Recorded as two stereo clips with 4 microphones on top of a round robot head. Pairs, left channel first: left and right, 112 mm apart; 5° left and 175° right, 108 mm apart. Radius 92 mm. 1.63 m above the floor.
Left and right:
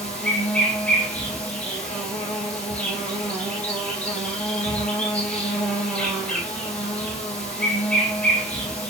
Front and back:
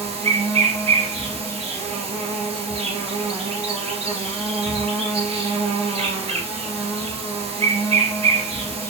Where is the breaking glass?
No breaking glass in this recording.